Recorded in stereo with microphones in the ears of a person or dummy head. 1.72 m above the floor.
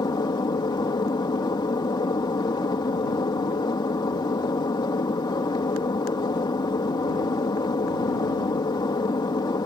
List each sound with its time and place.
0.0 s an aircraft: 20° left (ahead or behind)